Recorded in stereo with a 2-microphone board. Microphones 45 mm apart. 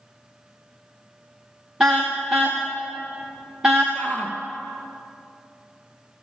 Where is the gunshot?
I don't hear a gunshot.